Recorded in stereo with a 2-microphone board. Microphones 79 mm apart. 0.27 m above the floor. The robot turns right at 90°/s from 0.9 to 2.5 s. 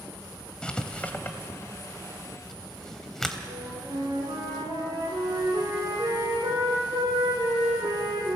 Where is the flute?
80° right, 7 m.